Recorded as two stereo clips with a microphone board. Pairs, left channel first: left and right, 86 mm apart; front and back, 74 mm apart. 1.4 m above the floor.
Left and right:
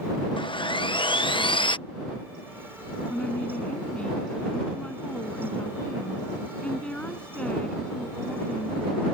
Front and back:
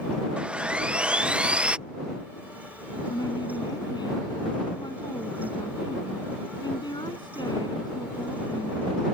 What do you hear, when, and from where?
0.4 s sawing: 105° left
3.1 s a woman speaking: 10° left